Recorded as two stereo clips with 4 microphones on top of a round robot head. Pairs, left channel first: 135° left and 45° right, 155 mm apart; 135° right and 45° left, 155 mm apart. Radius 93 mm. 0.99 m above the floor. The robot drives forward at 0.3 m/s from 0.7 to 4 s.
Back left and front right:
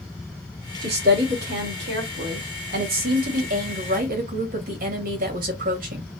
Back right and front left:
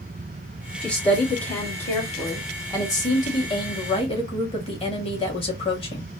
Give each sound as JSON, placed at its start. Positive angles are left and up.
{"t": 0.8, "sound": "a woman speaking", "azimuth_deg": -50, "distance_m": 2.0}